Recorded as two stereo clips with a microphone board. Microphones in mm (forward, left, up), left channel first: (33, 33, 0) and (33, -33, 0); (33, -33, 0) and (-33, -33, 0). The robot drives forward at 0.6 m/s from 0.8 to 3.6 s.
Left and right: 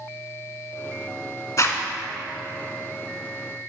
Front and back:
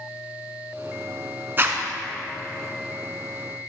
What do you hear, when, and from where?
1.6 s a zipper: 125° left, 0.8 m; by 1.8 s 130° left, 0.8 m